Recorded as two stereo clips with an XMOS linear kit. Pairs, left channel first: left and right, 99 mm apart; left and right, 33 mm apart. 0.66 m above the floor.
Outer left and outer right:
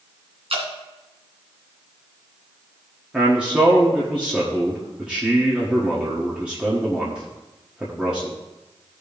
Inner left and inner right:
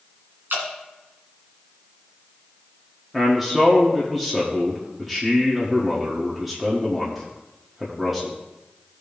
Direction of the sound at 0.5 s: 75° right (ahead or behind).